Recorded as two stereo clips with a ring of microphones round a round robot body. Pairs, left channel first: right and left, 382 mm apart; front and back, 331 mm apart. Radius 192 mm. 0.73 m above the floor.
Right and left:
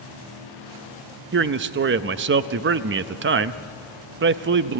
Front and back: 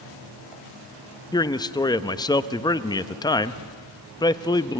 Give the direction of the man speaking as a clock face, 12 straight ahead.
10 o'clock.